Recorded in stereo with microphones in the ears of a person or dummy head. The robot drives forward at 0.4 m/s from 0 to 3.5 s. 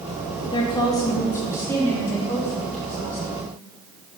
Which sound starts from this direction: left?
A woman speaking, at 0.5 s.